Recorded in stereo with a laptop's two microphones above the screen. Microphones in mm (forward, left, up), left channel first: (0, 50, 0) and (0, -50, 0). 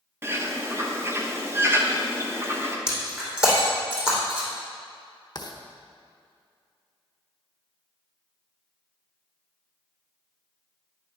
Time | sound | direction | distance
0.2 | a bird | 25° right (ahead or behind) | 0.9 m
2.9 | breaking glass | 10° right (ahead or behind) | 4 m
5.3 | writing | 40° left (ahead or behind) | 1.0 m